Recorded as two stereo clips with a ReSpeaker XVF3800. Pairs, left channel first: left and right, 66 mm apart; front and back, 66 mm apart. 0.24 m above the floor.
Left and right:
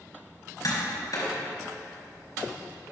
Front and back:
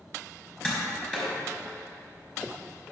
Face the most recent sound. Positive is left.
turn(degrees=75)